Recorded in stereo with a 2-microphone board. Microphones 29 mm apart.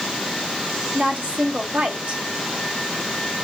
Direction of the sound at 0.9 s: 70° right (ahead or behind).